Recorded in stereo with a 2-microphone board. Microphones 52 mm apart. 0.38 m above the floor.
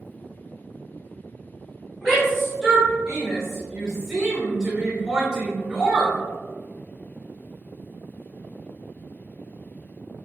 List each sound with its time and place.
2.0 s a shout: 5° right (ahead or behind), 2.0 m; by 6.2 s 15° right (ahead or behind), 1.6 m